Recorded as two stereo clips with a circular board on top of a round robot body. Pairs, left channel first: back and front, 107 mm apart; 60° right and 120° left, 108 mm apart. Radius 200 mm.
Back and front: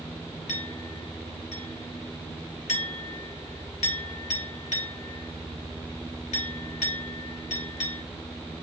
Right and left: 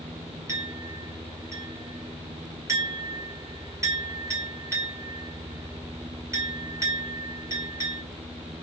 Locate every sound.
0.5 s a clink: 175° right, 2.0 m